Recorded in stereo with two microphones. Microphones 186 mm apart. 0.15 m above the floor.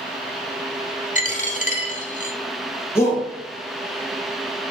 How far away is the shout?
About 1.7 m.